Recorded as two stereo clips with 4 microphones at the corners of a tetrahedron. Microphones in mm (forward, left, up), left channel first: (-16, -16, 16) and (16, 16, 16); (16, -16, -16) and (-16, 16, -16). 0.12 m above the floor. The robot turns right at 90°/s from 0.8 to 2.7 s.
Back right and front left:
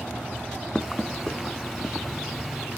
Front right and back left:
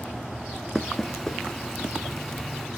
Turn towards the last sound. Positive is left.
turn(degrees=35)